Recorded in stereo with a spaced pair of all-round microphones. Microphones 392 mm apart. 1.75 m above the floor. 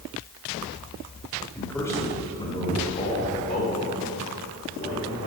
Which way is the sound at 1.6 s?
5° left (ahead or behind).